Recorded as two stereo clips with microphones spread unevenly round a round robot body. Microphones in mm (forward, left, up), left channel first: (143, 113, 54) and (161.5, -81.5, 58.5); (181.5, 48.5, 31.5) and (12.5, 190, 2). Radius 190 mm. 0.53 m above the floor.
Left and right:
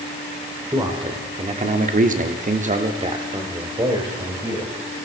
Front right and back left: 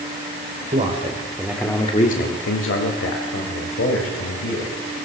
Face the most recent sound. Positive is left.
turn(degrees=-10)